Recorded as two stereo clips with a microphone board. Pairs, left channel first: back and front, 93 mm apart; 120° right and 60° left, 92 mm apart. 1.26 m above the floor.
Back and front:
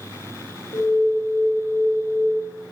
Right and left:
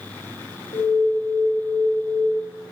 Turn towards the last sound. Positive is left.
turn(degrees=-135)